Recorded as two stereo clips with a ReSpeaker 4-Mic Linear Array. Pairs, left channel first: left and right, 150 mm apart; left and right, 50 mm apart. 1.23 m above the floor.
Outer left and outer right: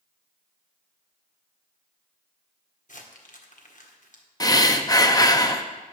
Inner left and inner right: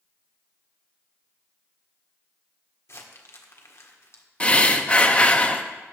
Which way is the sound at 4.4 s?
25° left (ahead or behind).